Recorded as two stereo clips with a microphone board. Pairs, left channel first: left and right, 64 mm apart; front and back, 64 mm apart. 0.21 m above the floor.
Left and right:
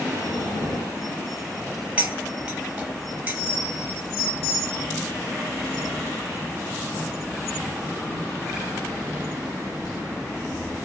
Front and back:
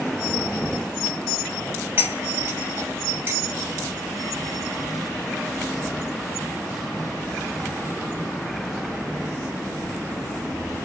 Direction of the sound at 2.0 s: 145° right.